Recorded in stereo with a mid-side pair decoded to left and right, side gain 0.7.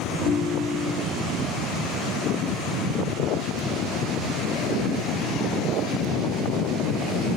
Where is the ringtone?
50° left, 2 m.